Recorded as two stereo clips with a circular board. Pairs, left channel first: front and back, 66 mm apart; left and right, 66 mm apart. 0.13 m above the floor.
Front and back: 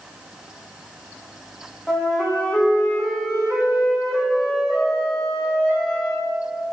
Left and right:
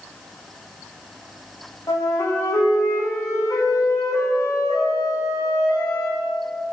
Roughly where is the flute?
Left.